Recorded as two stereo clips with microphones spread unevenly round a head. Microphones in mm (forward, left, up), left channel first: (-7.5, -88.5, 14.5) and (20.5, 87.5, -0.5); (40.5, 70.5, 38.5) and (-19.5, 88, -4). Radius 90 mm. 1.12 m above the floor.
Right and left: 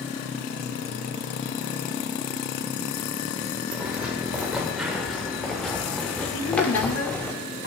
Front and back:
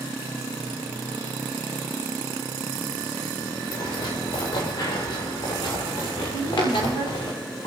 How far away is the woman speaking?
About 4.5 m.